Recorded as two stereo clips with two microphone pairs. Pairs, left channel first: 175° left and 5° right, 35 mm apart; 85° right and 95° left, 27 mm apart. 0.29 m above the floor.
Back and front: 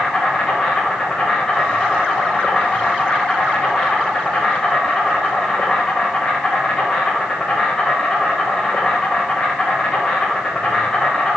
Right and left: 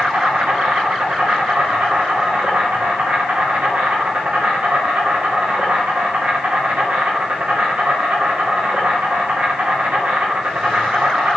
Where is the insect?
100° left, 5 m.